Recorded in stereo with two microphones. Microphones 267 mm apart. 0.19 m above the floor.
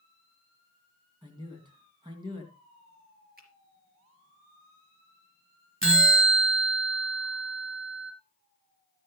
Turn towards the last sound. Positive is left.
turn(degrees=-50)  # may be behind; listen again after turning